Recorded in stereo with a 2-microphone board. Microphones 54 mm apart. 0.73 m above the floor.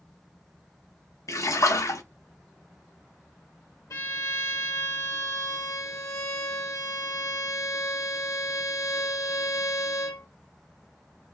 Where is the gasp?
No gasp in this recording.